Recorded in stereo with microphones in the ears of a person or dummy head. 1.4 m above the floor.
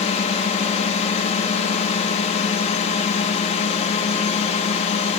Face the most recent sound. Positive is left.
turn(degrees=35)  # may be behind; listen again after turning